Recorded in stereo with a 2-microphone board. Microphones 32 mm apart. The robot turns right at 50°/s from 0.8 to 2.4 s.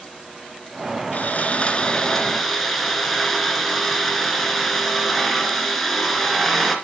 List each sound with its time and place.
1.1 s sawing: 115° left, 2.5 m; by 6.8 s straight behind, 2.5 m